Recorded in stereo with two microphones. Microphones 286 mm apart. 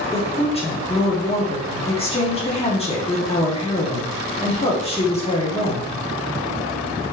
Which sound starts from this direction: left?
A woman speaking, at 0.1 s.